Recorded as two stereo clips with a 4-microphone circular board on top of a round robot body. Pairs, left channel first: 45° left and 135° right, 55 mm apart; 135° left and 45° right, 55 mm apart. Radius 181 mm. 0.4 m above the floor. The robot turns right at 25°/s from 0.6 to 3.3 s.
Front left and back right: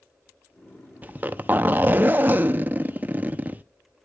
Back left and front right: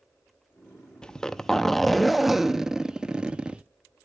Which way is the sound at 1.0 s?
160° right.